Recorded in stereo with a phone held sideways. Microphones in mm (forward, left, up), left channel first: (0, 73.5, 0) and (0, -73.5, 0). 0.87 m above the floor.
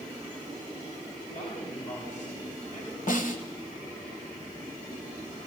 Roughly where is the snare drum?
Left.